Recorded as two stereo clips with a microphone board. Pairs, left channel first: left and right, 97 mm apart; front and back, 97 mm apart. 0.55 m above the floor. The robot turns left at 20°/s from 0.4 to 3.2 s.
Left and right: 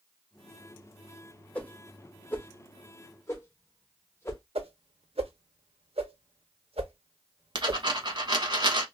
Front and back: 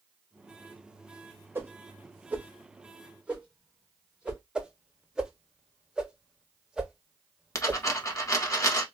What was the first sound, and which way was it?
A whoosh, 145° left.